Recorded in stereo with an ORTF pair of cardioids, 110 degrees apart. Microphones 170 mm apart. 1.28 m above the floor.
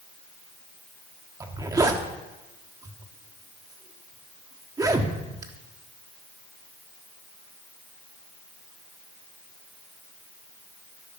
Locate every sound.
1.4 s a zipper: 20° right, 1.5 m